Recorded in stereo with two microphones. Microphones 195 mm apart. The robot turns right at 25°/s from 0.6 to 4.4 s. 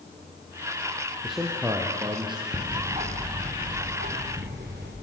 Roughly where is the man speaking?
Centre.